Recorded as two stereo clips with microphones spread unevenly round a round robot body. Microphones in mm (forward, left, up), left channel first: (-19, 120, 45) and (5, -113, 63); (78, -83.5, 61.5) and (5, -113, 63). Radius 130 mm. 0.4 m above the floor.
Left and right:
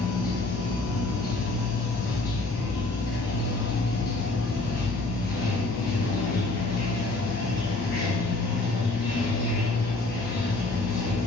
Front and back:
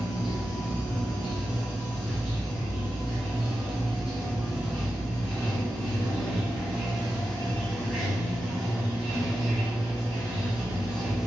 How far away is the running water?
About 1.8 m.